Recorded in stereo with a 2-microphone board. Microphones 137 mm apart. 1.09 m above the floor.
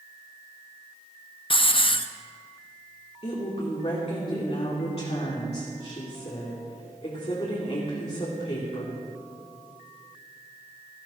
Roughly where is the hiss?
Left.